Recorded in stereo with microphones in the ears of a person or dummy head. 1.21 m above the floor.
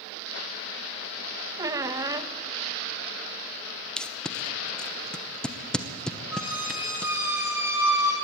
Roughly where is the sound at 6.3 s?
Centre.